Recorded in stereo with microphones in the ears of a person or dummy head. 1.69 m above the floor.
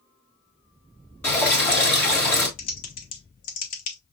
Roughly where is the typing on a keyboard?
Left.